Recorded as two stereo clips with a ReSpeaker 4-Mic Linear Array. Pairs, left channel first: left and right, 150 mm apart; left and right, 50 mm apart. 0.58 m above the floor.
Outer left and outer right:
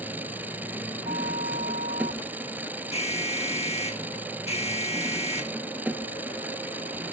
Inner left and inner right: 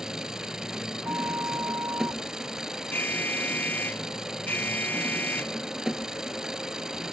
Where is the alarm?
45° left (ahead or behind).